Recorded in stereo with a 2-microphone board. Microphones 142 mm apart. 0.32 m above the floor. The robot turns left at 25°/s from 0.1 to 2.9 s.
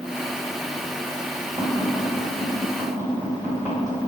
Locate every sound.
1.6 s tapping: 25° right (ahead or behind), 1.6 m